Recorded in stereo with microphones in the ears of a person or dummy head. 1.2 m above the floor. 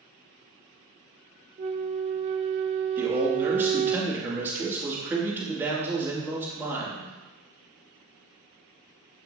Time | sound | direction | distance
1.6 | a flute | 35° right (ahead or behind) | 0.5 m
3.0 | a man speaking | 15° right (ahead or behind) | 2 m